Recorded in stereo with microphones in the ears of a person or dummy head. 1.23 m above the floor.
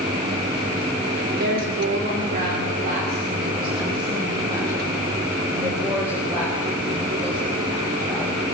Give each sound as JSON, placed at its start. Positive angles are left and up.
{"t": 1.3, "sound": "a woman speaking", "side_deg": -65, "distance_m": 3.5}